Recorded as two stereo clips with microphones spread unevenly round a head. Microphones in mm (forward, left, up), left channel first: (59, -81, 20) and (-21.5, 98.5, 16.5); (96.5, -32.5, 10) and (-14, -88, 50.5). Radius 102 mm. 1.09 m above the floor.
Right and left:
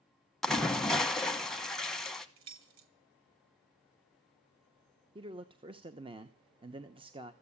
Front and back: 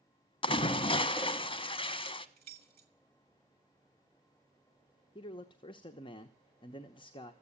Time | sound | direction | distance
0.4 | a splash | 20° left | 1.2 m
2.4 | keys jangling | 145° left | 1.4 m
5.2 | a man speaking | 55° left | 0.9 m